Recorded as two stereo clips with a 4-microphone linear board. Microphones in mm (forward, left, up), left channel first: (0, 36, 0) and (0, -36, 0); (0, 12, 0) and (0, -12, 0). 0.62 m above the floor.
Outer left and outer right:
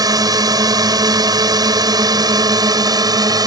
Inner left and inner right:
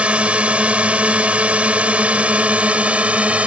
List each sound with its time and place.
0.0 s a drone: 60° right (ahead or behind); by 3.5 s 65° right (ahead or behind)